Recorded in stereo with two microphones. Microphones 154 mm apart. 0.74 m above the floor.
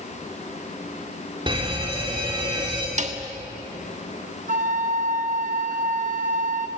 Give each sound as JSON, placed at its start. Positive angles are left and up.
{"t": 1.5, "sound": "a fire alarm", "side_deg": -30, "distance_m": 3.0}
{"t": 3.0, "sound": "a snare drum", "side_deg": -50, "distance_m": 1.4}
{"t": 4.5, "sound": "a flute", "side_deg": -55, "distance_m": 1.1}